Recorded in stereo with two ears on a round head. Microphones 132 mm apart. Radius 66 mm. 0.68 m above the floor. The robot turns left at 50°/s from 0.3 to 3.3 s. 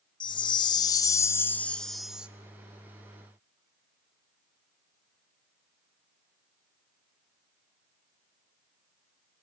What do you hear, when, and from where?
0.2 s a chime: 85° left, 0.7 m; by 2.3 s 15° right, 0.7 m